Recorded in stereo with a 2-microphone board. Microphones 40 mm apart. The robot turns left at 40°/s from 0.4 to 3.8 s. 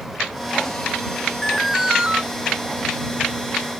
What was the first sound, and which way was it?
An alarm, straight ahead.